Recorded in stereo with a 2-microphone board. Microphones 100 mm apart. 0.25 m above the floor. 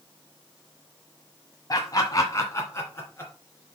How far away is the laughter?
About 1.3 m.